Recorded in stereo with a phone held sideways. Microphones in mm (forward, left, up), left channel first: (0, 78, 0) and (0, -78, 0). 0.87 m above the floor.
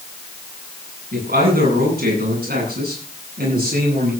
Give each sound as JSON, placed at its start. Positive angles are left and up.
{"t": 1.1, "sound": "a man speaking", "side_deg": -85, "distance_m": 9.0}